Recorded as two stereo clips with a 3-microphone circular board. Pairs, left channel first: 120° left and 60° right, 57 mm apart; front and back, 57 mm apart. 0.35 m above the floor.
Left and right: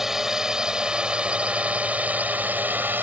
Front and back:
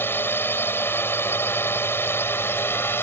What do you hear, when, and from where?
0.0 s a drone: 20° left; by 3.0 s 25° right